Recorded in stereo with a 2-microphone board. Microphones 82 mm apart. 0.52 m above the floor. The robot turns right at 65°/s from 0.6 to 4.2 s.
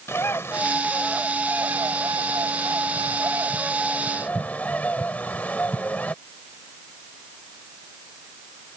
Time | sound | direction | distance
0.1 | a bird | 145° left | ?